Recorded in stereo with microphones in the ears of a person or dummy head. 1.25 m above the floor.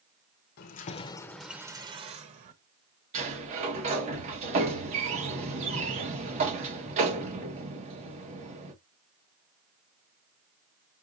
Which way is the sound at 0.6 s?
50° left (ahead or behind).